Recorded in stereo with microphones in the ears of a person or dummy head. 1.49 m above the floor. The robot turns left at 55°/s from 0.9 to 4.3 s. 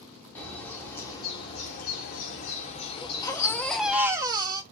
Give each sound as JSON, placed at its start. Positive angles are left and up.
{"t": 0.3, "sound": "a bird", "azimuth_deg": 165, "distance_m": 1.5}
{"t": 3.0, "sound": "a baby crying", "azimuth_deg": 45, "distance_m": 1.0}